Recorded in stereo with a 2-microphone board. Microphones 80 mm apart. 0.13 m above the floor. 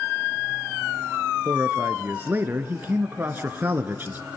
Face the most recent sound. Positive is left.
turn(degrees=-25)  # may be behind; listen again after turning